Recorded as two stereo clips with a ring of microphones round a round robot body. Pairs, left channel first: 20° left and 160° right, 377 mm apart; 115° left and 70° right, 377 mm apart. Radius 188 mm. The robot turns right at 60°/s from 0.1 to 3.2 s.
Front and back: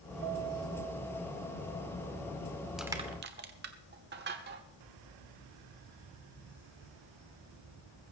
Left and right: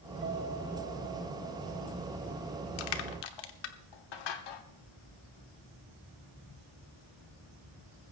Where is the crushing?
115° left, 1.1 m; by 4.6 s 140° left, 1.1 m.